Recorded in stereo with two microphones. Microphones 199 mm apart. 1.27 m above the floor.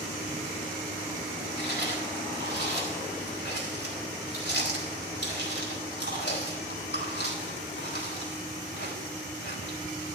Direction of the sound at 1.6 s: 65° left (ahead or behind).